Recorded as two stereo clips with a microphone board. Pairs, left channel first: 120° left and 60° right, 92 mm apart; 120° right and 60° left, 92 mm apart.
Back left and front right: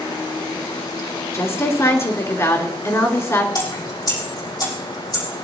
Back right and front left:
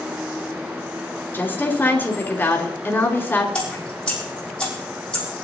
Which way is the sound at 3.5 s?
160° left.